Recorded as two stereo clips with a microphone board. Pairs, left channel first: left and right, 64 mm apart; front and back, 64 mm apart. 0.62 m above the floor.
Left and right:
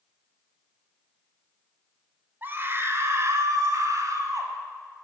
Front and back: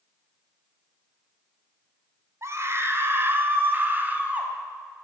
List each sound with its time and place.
2.4 s a scream: 145° right, 2.5 m; by 4.5 s 115° right, 4.5 m